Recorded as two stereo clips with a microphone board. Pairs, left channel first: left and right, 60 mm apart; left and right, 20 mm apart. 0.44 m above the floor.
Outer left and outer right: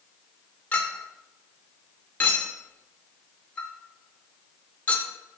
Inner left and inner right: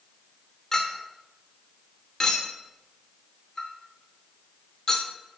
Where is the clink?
25° left (ahead or behind), 0.6 m.